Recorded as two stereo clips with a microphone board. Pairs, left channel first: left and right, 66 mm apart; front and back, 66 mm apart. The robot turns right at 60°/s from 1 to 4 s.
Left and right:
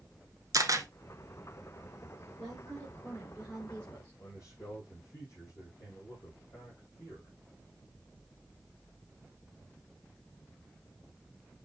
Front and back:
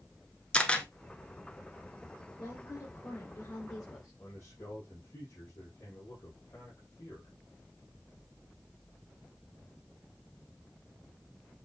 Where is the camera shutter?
75° right, 1.3 m.